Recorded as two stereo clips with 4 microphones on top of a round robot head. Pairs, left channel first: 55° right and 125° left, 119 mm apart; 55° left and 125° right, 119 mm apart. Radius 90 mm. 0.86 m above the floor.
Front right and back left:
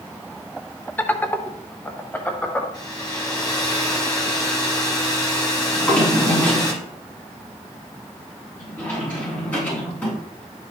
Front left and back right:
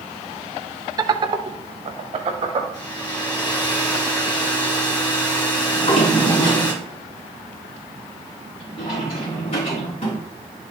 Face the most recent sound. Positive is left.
turn(degrees=20)